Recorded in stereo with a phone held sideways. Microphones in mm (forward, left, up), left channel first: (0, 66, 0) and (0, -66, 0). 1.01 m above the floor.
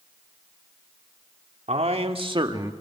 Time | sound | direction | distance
1.7 | a man speaking | 55° right (ahead or behind) | 2.5 m